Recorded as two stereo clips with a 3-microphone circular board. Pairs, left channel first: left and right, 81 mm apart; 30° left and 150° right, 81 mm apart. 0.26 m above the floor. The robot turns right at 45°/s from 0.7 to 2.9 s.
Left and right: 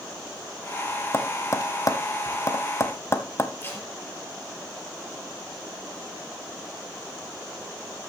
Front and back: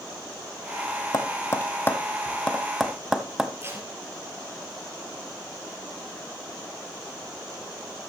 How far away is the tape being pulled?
About 4 m.